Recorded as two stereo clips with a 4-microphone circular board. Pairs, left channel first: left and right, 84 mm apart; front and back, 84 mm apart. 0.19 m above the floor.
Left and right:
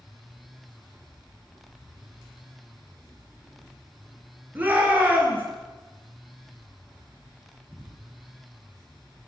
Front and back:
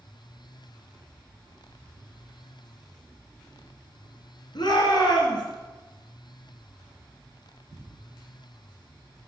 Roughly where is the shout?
Ahead.